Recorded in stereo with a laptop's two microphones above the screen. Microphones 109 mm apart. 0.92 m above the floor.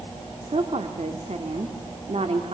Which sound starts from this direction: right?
A woman speaking, at 0.4 s.